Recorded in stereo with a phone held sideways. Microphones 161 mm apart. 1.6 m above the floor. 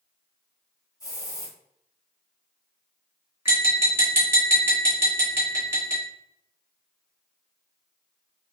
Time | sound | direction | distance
1.0 | a hiss | 25° left (ahead or behind) | 1.8 m
3.5 | tapping | 15° right (ahead or behind) | 1.7 m